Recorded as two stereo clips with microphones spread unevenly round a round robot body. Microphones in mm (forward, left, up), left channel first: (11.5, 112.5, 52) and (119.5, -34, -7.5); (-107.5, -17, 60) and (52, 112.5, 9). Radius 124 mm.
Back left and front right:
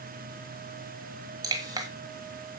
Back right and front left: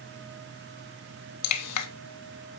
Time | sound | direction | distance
1.4 | dripping | 130° right | 1.1 m